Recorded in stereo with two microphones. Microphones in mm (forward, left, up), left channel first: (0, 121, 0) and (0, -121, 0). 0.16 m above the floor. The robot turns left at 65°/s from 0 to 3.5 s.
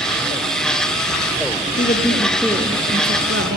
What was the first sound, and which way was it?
A woman speaking, 45° left.